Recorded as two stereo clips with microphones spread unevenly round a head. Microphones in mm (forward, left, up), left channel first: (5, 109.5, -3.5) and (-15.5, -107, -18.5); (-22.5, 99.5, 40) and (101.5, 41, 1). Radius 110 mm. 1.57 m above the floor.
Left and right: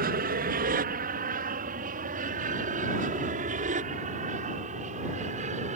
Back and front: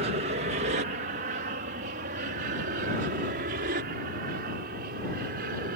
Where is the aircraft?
50° right; by 5.8 s 35° right.